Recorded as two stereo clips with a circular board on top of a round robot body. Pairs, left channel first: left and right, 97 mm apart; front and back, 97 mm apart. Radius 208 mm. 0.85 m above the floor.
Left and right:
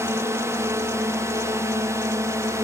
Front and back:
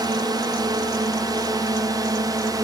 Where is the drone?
145° right; by 2.7 s 140° right.